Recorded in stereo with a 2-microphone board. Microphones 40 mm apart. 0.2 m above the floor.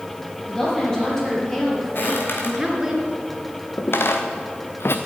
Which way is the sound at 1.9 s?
60° left (ahead or behind).